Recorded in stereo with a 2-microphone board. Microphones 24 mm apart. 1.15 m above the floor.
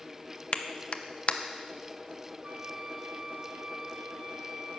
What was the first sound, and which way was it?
A clap, 55° left (ahead or behind).